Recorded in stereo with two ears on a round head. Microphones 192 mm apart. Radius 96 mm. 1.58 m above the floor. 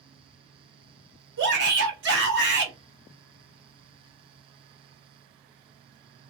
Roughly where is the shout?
Right.